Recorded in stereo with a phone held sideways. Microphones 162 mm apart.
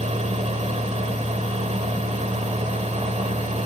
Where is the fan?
45° right (ahead or behind), 1.5 m.